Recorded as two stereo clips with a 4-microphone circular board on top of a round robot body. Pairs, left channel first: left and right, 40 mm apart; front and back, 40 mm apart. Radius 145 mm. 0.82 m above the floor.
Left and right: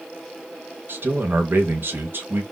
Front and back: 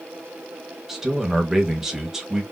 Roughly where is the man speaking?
Right.